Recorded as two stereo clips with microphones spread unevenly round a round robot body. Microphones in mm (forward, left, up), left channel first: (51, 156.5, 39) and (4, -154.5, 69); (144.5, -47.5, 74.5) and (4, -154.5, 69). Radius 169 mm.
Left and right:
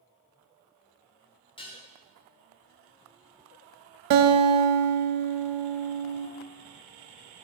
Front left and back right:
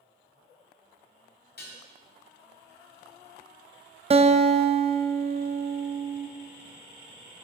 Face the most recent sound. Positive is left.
turn(degrees=-85)